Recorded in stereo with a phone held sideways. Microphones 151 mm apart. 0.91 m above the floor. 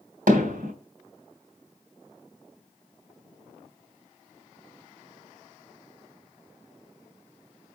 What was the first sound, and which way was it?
Hammering, 80° right.